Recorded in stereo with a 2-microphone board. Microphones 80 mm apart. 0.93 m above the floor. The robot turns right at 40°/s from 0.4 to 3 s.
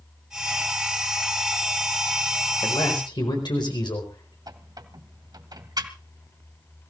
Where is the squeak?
60° right (ahead or behind), 1.7 m.